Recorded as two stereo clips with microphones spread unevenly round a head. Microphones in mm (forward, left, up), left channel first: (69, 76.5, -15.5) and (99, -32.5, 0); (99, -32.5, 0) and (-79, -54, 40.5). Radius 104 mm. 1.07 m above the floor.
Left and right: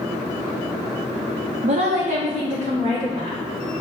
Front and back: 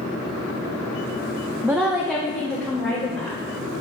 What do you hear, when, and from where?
1.6 s a woman speaking: 90° right, 0.6 m; by 3.4 s 80° right, 2 m